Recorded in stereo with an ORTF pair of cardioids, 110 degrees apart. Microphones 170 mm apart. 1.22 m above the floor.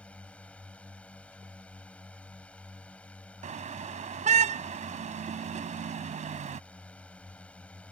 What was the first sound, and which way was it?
A drone, 5° left.